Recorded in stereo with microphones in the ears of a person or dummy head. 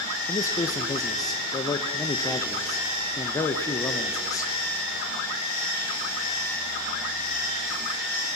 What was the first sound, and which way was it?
A man speaking, 20° left (ahead or behind).